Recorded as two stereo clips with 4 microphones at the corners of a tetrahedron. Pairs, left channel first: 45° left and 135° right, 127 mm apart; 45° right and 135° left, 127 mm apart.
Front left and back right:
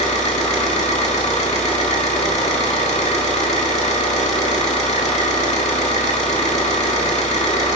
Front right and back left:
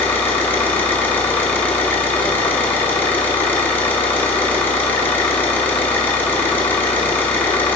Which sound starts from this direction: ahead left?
An engine running, at 0.0 s.